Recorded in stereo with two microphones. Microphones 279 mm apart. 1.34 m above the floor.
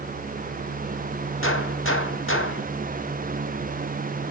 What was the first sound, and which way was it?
A gunshot, 50° left (ahead or behind).